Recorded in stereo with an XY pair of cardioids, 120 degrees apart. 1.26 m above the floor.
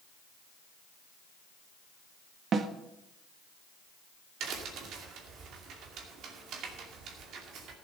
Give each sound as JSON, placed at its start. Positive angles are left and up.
{"t": 2.5, "sound": "a snare drum", "azimuth_deg": -45, "distance_m": 1.3}
{"t": 4.4, "sound": "a crack", "azimuth_deg": -70, "distance_m": 2.5}